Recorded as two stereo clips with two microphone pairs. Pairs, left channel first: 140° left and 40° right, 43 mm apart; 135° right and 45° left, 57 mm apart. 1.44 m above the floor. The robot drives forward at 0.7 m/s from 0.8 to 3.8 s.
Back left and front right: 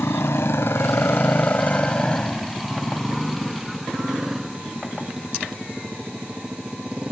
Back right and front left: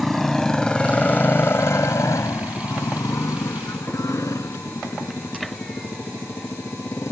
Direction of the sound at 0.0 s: 135° left.